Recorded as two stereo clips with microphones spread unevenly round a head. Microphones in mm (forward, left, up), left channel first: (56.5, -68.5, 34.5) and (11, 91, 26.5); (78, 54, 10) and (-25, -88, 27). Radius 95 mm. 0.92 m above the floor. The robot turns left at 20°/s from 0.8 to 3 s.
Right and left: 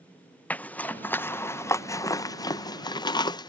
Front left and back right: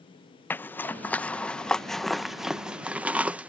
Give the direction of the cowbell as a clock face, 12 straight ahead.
No cowbell in this recording.